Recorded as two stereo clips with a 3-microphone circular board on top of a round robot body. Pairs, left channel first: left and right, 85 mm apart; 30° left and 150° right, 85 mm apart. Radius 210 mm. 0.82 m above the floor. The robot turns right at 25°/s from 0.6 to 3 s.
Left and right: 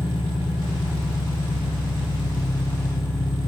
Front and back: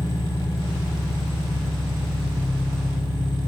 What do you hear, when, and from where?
0.0 s an engine running: 90° left, 1.1 m; by 3.5 s 150° left, 1.1 m